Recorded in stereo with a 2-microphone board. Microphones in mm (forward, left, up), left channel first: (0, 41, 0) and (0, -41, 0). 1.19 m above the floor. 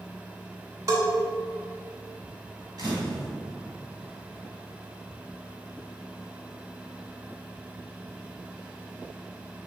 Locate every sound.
0.9 s a bell: 45° right (ahead or behind), 2.5 m
2.8 s a camera shutter: 55° right (ahead or behind), 1.9 m